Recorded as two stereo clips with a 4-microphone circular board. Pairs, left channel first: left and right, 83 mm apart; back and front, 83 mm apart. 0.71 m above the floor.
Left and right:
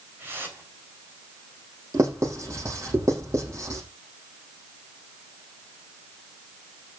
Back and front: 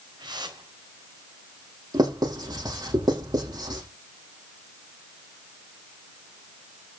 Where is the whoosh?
25° right, 4.5 m.